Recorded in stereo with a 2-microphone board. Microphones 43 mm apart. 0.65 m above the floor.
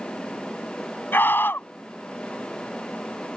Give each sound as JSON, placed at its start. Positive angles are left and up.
{"t": 1.1, "sound": "a scream", "side_deg": 55}